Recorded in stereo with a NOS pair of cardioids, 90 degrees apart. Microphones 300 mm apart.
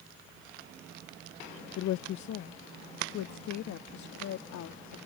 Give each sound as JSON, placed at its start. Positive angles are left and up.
{"t": 1.8, "sound": "a woman speaking", "azimuth_deg": 70}